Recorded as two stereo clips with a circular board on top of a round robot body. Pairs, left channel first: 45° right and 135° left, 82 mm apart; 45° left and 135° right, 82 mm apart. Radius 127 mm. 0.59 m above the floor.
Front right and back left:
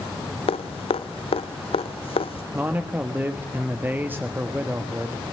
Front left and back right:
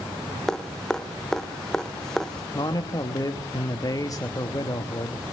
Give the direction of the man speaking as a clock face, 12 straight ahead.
10 o'clock.